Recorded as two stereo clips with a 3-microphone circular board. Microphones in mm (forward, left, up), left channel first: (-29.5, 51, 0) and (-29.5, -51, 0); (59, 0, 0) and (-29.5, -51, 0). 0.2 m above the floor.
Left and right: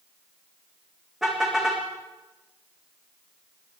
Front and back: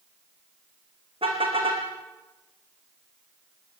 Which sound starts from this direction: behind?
A car horn, at 1.2 s.